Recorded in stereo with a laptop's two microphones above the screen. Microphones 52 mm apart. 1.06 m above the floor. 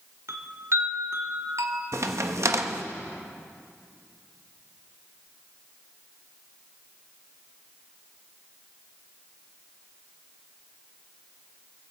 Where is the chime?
60° right (ahead or behind), 1.4 m.